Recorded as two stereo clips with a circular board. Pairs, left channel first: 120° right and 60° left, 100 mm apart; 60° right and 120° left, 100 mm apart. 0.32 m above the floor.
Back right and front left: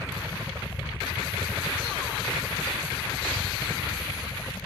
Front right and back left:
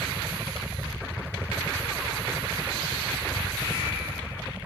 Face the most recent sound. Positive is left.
turn(degrees=-175)